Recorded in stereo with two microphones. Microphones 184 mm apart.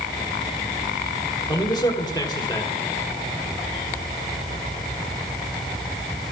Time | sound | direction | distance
1.5 | a man speaking | 20° left (ahead or behind) | 1.8 m